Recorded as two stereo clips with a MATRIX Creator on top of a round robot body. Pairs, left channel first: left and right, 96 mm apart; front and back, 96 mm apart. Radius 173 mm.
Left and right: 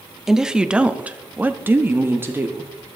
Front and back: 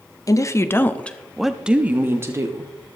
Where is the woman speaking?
5° right, 1.3 m; by 2.7 s 145° right, 1.5 m.